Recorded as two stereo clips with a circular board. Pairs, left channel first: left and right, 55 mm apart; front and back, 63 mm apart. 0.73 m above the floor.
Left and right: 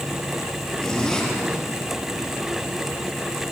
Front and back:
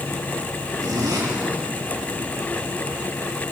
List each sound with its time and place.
0.8 s a zipper: 165° left, 5.5 m